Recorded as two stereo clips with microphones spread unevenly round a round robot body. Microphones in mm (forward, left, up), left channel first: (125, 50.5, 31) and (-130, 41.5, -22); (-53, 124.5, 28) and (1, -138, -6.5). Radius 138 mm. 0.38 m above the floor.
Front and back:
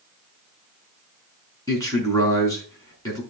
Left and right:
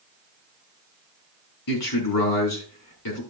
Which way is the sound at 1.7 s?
80° left.